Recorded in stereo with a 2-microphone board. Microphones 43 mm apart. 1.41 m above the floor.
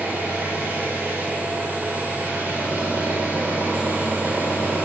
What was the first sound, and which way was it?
An engine running, 40° right (ahead or behind).